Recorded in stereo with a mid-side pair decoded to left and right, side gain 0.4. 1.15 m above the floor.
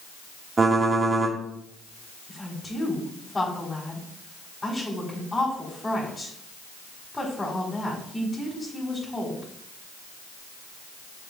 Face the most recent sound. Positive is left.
turn(degrees=25)